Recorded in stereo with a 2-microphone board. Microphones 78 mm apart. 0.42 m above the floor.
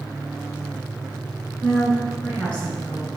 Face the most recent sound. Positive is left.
turn(degrees=25)  # may be behind; listen again after turning